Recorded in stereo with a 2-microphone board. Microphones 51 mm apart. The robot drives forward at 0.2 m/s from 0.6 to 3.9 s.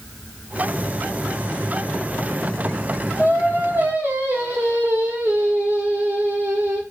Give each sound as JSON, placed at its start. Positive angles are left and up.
{"t": 3.2, "sound": "singing", "side_deg": -45, "distance_m": 1.2}